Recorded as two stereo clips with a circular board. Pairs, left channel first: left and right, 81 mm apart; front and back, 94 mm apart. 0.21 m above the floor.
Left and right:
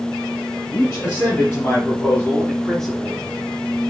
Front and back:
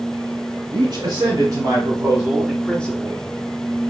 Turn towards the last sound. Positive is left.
turn(degrees=-5)